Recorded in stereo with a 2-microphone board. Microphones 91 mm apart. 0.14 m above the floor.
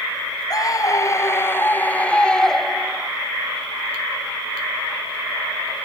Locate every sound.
0.5 s a scream: 45° left (ahead or behind); by 3.1 s 5° right (ahead or behind)